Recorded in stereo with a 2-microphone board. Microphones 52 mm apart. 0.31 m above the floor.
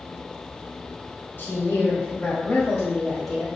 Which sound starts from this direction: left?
A woman speaking, at 1.4 s.